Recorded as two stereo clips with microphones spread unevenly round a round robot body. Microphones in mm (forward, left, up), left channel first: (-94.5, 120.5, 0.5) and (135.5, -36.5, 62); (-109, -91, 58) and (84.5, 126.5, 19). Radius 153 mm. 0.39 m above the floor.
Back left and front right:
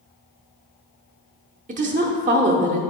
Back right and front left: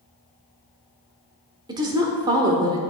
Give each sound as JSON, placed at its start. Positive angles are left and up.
{"t": 1.7, "sound": "a woman speaking", "azimuth_deg": 20, "distance_m": 0.8}